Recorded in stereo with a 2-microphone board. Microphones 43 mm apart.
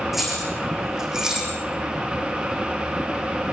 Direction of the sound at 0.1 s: 5° right (ahead or behind).